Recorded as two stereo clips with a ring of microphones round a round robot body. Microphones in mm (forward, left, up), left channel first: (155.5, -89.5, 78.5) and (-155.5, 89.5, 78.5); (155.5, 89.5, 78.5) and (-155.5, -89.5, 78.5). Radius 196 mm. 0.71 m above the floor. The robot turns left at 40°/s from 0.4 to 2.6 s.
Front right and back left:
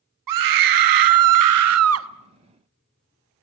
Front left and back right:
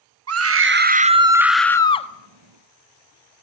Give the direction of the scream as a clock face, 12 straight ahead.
6 o'clock.